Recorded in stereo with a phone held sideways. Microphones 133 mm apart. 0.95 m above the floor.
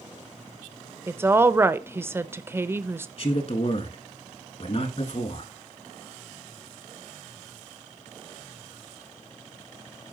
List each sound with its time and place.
1.1 s a woman speaking: 15° right (ahead or behind), 0.6 m
3.2 s a man speaking: 50° left (ahead or behind), 1.8 m